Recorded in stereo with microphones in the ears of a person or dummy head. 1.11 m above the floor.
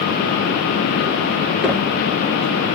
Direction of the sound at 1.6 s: 10° left (ahead or behind).